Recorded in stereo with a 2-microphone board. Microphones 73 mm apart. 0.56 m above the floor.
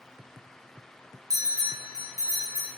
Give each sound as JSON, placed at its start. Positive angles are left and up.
{"t": 1.3, "sound": "a bell", "side_deg": -55, "distance_m": 0.9}